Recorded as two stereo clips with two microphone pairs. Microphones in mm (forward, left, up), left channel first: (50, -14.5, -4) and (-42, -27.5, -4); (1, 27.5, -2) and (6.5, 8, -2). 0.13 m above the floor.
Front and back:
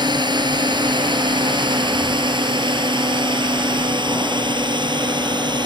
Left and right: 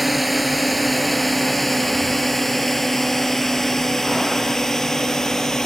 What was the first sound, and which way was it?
A drone, 160° right.